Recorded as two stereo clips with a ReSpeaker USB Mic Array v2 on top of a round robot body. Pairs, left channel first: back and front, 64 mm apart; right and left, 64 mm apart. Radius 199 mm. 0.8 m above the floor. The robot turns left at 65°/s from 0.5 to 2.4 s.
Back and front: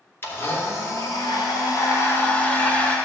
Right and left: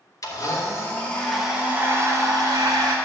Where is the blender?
125° right, 1.9 m; by 3.0 s 110° left, 1.9 m.